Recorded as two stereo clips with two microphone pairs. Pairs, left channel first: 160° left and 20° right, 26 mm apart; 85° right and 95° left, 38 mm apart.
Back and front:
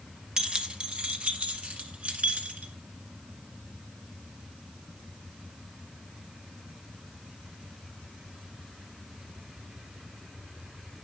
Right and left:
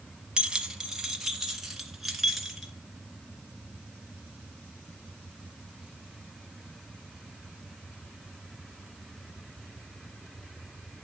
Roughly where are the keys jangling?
Ahead left.